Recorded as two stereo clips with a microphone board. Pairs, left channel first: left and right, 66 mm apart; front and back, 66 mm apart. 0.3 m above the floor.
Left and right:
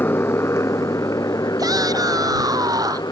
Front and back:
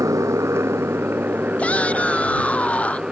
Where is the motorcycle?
145° left; by 3.1 s 100° left.